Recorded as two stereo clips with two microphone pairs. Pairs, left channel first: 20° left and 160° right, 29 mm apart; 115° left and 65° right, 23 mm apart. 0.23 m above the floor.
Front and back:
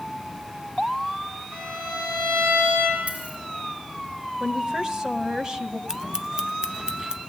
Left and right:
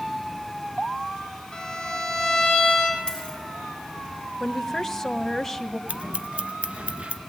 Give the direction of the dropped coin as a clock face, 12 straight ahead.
6 o'clock.